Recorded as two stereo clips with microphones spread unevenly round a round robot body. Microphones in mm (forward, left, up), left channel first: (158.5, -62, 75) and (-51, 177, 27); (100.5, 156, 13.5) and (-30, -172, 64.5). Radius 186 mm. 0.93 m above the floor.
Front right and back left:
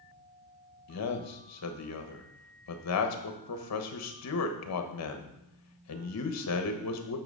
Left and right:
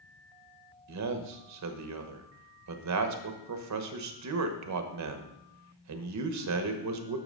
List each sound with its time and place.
0.9 s a man speaking: 80° right, 1.2 m